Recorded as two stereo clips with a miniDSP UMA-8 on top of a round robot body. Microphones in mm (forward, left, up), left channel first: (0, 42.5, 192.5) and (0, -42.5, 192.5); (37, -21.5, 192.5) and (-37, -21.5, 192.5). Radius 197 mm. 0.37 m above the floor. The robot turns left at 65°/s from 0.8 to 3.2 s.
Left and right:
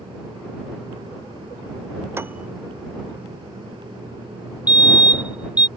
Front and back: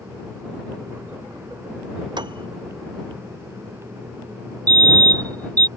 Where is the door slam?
No door slam in this recording.